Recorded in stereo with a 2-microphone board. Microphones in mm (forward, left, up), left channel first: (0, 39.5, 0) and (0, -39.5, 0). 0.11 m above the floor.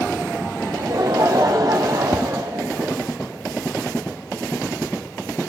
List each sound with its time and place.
0.6 s laughter: 60° right (ahead or behind), 3.5 m
2.1 s tapping: 50° left (ahead or behind), 0.6 m